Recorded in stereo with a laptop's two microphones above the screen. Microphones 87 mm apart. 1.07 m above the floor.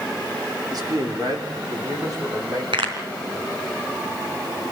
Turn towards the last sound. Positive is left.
turn(degrees=-80)